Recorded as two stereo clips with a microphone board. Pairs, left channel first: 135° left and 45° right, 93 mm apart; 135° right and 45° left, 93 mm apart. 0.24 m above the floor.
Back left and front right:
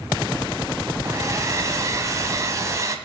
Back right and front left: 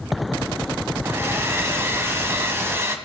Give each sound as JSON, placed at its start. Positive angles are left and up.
{"t": 1.0, "sound": "a hair dryer", "azimuth_deg": -5, "distance_m": 1.3}